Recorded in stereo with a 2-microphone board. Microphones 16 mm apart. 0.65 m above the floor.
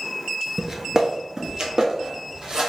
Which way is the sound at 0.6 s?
25° right (ahead or behind).